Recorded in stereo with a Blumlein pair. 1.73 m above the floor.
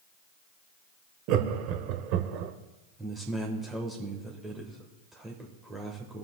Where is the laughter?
40° right, 1.1 m.